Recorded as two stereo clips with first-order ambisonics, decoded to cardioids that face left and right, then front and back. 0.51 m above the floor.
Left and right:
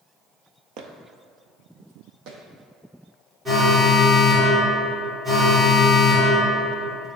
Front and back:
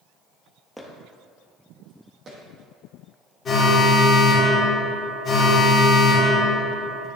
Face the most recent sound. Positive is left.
turn(degrees=-35)